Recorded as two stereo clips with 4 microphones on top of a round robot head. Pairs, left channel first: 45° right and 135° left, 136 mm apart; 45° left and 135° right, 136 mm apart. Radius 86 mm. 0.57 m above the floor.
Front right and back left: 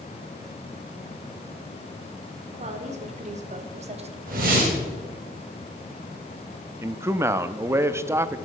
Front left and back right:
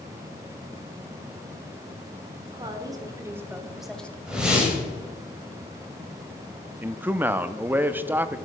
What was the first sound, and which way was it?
A woman speaking, 170° left.